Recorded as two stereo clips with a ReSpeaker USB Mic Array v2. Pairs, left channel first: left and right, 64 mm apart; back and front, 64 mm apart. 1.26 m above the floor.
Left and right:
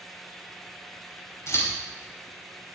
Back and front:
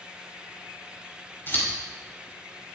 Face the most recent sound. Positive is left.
turn(degrees=130)